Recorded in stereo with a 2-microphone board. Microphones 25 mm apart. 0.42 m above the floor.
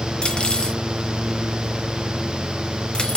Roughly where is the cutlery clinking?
Left.